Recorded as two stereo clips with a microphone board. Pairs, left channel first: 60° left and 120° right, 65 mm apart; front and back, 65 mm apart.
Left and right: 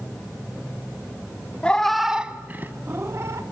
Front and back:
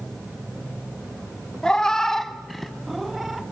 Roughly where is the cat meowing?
Ahead left.